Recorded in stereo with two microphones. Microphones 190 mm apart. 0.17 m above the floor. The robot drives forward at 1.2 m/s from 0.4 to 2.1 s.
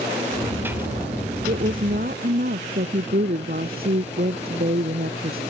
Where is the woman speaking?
45° right (ahead or behind); by 5.4 s 50° right (ahead or behind).